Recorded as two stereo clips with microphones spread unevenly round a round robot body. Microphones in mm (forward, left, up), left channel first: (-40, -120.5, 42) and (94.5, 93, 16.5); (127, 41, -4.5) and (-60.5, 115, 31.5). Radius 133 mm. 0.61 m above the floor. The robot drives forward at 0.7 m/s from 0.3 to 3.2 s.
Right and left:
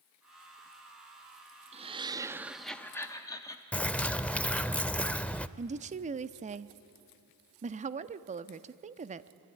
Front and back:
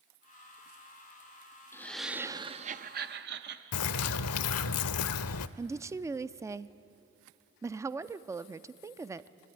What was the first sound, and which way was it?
Laughter, 30° left.